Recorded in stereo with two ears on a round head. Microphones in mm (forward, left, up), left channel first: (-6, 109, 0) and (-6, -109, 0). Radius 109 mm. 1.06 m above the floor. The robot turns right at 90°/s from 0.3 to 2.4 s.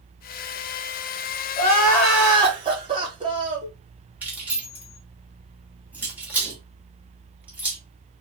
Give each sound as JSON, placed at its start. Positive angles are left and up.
{"t": 1.6, "sound": "crying", "azimuth_deg": 130, "distance_m": 1.2}
{"t": 4.2, "sound": "keys jangling", "side_deg": -5, "distance_m": 1.2}